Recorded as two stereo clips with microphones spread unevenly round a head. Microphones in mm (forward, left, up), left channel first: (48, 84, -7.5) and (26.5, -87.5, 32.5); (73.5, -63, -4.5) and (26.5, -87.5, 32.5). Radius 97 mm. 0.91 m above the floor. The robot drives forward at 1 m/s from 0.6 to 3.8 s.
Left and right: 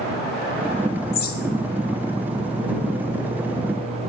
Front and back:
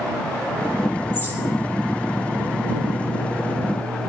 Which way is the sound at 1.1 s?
60° left.